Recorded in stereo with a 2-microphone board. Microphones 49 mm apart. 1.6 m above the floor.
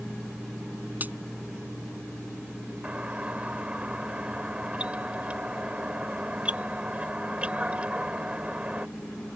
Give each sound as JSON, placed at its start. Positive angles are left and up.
{"t": 1.0, "sound": "a crack", "side_deg": -35}
{"t": 2.8, "sound": "a doorbell", "side_deg": -25}